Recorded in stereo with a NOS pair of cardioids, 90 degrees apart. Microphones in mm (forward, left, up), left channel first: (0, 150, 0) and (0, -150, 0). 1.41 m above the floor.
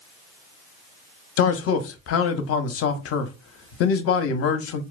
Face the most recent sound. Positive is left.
turn(degrees=50)